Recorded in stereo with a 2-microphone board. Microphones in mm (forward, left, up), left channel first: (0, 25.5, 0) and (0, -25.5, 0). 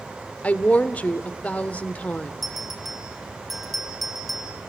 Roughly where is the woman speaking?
Left.